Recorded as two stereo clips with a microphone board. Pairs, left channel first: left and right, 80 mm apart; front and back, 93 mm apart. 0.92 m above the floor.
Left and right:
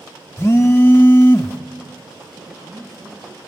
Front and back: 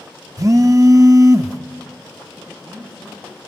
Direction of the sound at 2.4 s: 100° right.